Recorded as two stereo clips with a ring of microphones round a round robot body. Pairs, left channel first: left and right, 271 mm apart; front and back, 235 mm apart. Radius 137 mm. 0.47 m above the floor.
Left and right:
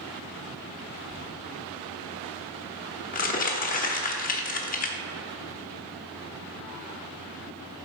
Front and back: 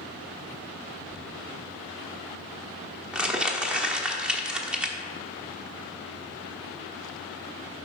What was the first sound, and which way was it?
Crumpling, 95° left.